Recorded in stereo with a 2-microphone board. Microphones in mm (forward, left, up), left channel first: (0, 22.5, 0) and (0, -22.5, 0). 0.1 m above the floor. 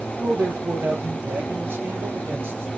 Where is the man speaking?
55° right (ahead or behind), 2.5 m.